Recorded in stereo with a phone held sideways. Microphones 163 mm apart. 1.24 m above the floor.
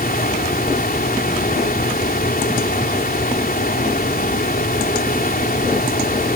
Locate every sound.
0.0 s a fan: 65° left (ahead or behind)